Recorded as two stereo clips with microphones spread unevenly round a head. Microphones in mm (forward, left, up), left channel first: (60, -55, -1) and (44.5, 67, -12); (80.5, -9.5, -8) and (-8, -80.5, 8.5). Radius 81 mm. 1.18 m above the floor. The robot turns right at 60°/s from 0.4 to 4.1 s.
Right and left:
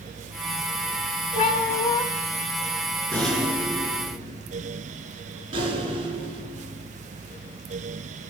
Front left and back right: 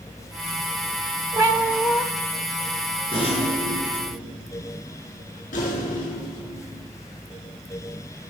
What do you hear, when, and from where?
1.4 s a cat meowing: 90° right, 1.7 m; by 2.0 s 50° right, 1.7 m
3.1 s a rattle: 5° right, 5 m; by 6.9 s 55° left, 5 m